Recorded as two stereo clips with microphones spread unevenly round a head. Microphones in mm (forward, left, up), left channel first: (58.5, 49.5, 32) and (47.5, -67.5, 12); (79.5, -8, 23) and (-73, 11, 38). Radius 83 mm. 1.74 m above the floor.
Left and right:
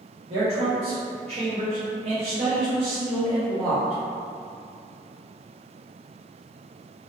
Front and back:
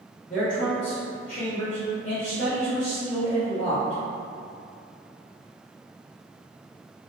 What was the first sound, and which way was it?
A man speaking, 55° right.